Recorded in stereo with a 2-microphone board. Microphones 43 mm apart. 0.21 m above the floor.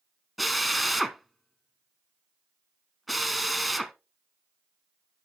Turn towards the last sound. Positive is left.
turn(degrees=0)  # may be behind; listen again after turning